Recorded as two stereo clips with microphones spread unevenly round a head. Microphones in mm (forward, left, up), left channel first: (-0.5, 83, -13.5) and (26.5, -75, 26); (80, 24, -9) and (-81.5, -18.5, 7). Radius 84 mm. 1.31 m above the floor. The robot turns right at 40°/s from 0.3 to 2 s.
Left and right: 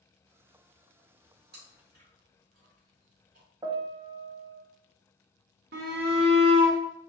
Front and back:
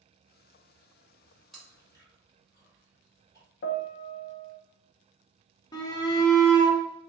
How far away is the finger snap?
No finger snap in this recording.